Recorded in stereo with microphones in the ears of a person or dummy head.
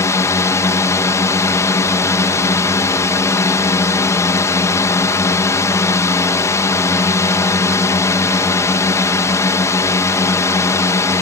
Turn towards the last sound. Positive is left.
turn(degrees=10)  # may be behind; listen again after turning